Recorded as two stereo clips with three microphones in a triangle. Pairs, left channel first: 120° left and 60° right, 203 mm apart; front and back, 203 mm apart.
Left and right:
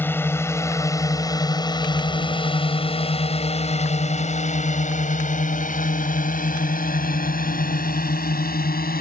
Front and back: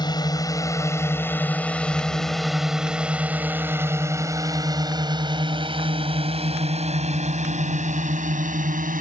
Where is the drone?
50° left; by 9.0 s 145° left.